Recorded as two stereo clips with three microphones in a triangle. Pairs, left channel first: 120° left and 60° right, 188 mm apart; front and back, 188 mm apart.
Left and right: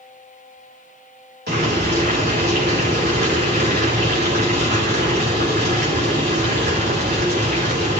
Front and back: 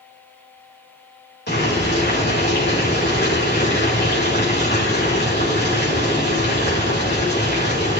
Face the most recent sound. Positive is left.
turn(degrees=-30)